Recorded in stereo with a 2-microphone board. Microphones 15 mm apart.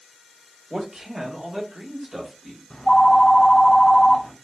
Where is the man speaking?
75° right (ahead or behind), 1.4 m; by 2.6 s 25° right (ahead or behind), 1.5 m.